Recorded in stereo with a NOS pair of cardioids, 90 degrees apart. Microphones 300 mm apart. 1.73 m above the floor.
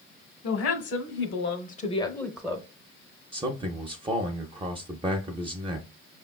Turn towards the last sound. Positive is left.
turn(degrees=-20)